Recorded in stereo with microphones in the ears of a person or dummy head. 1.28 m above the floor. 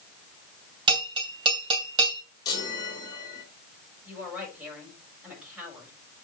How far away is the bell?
About 2 m.